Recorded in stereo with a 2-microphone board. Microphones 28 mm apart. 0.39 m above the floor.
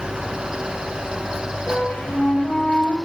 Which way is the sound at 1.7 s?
60° left (ahead or behind).